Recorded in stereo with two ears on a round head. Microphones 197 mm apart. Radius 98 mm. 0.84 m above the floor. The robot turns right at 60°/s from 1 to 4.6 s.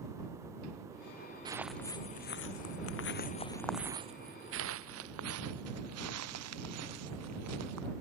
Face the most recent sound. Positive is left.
turn(degrees=-80)